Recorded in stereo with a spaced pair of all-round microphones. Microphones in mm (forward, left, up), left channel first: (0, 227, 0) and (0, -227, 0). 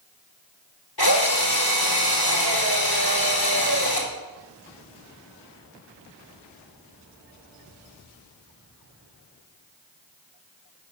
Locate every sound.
1.0 s a drill: 55° left (ahead or behind), 3.5 m